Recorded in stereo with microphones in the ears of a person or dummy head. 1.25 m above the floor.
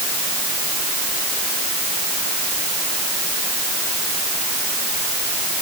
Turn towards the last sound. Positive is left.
No sound to turn to.